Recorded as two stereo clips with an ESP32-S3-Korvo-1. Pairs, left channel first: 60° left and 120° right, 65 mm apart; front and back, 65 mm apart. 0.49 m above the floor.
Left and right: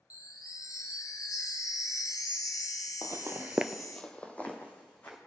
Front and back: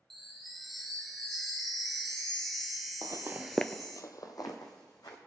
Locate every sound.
0.1 s a chime: 90° left, 1.2 m
3.0 s footsteps: 160° right, 0.9 m; by 5.2 s straight ahead, 2.5 m